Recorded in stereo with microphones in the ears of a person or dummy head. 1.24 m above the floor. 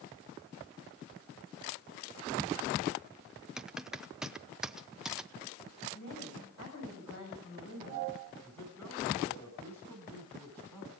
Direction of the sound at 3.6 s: Centre (ahead or behind).